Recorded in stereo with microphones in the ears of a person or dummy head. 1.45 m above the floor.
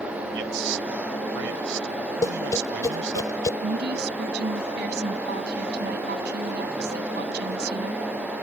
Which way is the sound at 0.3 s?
70° right (ahead or behind).